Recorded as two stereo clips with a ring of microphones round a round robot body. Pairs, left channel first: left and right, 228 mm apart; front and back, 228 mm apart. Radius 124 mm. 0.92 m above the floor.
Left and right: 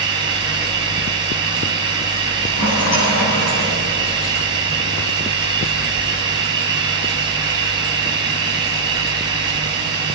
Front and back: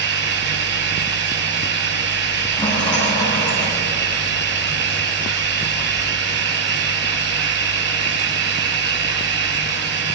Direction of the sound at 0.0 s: 165° right.